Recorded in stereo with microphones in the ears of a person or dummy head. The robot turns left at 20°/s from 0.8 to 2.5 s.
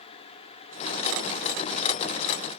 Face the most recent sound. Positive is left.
No sound to turn to.